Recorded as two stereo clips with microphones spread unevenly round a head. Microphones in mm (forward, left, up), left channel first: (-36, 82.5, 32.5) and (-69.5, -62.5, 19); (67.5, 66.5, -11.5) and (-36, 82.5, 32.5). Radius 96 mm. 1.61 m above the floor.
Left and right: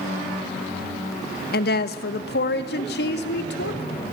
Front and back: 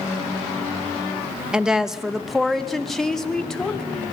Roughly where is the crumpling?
No crumpling in this recording.